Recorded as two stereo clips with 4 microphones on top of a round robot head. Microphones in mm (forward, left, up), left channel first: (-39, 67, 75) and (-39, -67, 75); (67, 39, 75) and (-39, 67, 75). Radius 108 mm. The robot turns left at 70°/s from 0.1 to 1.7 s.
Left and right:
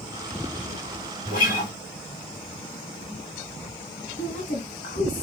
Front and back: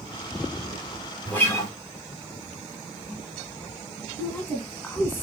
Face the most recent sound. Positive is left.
turn(degrees=55)